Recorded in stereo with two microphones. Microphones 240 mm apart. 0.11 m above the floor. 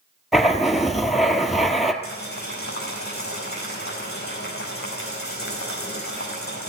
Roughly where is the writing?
Centre.